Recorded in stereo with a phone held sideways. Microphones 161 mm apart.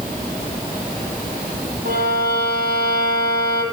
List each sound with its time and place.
1.9 s a violin: 85° right, 8.5 m